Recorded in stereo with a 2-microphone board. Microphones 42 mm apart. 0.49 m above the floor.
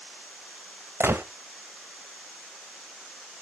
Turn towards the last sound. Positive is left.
turn(degrees=-70)  # may be behind; listen again after turning